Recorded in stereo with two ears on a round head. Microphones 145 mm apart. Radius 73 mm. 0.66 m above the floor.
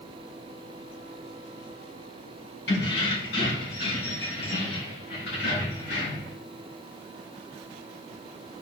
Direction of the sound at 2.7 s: 80° left.